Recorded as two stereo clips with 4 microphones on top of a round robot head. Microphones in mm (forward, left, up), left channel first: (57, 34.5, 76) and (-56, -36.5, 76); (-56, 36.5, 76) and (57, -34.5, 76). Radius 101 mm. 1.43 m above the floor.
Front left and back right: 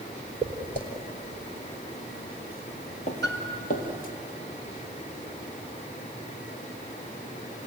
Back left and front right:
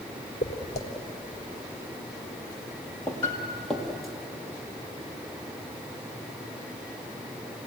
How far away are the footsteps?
About 2 m.